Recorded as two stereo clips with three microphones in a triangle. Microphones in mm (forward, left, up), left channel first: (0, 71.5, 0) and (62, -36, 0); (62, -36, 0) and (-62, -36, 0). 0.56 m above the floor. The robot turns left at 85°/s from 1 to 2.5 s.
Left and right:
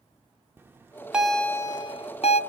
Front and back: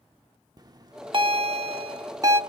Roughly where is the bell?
Behind right.